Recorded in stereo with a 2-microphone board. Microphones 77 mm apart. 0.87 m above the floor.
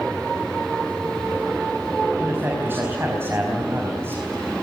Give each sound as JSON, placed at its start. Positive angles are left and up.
{"t": 2.2, "sound": "a man speaking", "side_deg": -30, "distance_m": 5.0}